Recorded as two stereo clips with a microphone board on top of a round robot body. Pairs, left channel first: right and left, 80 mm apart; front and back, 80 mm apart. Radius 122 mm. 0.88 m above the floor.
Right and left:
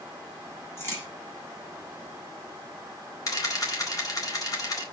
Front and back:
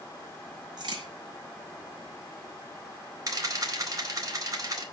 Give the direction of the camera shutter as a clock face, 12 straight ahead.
5 o'clock.